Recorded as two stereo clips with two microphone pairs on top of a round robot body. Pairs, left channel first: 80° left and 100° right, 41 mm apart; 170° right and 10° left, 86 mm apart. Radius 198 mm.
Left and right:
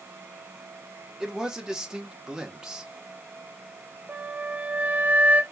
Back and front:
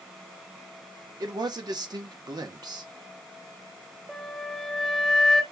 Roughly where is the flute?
Right.